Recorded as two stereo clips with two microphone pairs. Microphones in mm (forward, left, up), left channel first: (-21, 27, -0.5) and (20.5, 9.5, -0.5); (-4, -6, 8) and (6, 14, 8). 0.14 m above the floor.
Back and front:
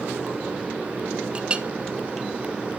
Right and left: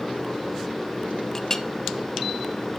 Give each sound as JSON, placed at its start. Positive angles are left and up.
{"t": 1.4, "sound": "a clink", "azimuth_deg": -60, "distance_m": 0.8}